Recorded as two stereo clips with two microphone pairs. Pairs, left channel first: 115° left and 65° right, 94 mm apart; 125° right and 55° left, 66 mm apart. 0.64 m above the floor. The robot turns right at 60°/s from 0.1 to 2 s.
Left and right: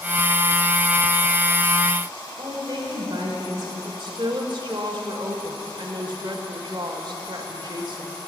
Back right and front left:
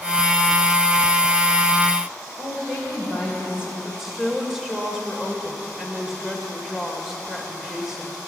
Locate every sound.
2.4 s a woman speaking: 20° right, 3 m
3.9 s a woman speaking: 30° right, 2 m